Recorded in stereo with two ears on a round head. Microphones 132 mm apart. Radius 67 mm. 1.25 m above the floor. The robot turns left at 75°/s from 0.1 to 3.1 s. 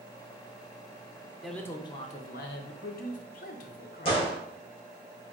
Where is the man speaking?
Straight behind, 0.7 m; by 4.2 s 55° left, 0.7 m.